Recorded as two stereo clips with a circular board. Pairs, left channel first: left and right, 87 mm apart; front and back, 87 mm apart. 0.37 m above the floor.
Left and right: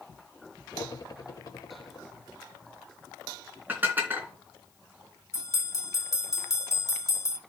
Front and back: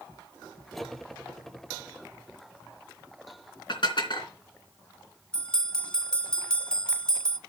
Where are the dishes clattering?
25° right, 3 m.